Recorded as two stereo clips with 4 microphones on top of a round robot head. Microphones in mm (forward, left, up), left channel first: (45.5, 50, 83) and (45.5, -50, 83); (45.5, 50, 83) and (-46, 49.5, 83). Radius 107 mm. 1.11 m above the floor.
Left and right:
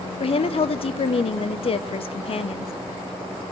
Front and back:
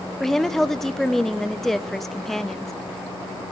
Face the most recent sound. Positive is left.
turn(degrees=85)